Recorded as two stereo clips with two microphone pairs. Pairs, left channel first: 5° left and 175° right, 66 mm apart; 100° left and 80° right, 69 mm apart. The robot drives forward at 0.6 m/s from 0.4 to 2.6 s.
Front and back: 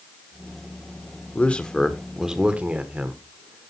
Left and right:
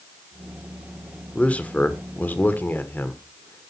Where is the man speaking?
45° left, 1.0 m; by 3.7 s 135° left, 1.0 m.